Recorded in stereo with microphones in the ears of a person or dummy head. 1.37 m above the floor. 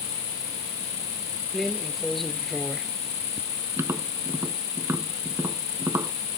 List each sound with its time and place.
0.0 s an insect: 25° left (ahead or behind)
1.5 s a drawer: 5° right (ahead or behind)
3.8 s tapping: 20° right (ahead or behind)